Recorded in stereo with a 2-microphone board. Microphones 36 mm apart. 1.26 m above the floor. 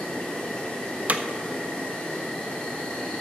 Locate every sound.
0.0 s an insect: 25° left (ahead or behind), 2.5 m
1.1 s hammering: 45° right (ahead or behind), 0.7 m